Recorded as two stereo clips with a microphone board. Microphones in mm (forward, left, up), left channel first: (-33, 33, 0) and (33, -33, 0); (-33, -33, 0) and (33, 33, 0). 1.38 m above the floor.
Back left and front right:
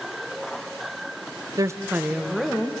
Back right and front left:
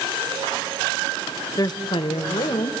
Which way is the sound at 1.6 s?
90° right.